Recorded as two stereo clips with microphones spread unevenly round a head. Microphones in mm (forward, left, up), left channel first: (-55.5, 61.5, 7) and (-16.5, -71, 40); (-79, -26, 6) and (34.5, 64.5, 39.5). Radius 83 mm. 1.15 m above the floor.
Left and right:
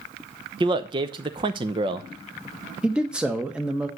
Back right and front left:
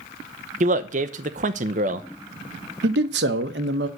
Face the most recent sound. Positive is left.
turn(degrees=15)